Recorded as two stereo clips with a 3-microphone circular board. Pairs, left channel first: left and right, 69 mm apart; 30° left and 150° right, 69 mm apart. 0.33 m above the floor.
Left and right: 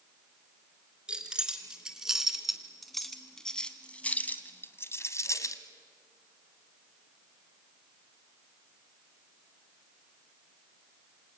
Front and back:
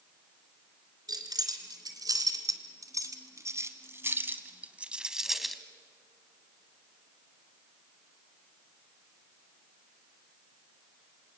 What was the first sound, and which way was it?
Keys jangling, 170° right.